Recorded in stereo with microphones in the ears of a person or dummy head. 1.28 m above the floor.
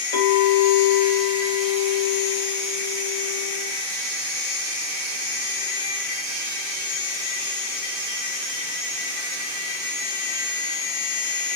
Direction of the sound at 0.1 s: 45° left (ahead or behind).